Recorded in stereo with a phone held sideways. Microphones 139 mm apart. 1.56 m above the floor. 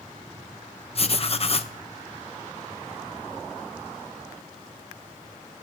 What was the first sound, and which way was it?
Writing, 45° left (ahead or behind).